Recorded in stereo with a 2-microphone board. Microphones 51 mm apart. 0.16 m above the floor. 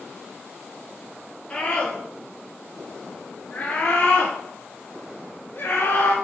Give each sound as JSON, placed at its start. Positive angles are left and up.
{"t": 1.5, "sound": "a scream", "side_deg": 15, "distance_m": 3.0}